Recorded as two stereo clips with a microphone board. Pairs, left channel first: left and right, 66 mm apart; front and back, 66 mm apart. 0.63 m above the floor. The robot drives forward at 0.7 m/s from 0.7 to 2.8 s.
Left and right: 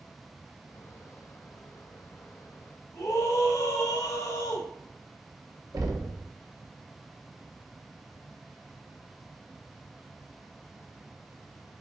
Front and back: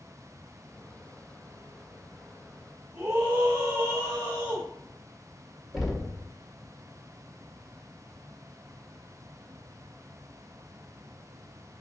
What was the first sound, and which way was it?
A scream, 130° left.